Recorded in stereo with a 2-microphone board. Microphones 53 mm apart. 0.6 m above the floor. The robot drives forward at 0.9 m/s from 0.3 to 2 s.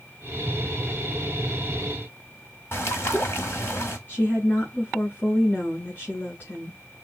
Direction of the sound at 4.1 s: 40° left (ahead or behind).